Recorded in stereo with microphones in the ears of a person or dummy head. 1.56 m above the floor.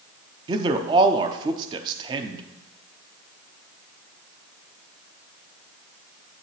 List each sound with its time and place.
0.5 s a man speaking: 25° right (ahead or behind), 0.7 m